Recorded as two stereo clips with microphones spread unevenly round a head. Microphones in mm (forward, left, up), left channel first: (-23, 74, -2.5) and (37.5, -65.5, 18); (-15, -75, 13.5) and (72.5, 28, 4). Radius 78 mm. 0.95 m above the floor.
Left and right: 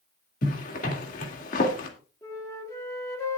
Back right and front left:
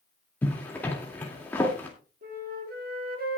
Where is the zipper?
150° left, 2.5 m.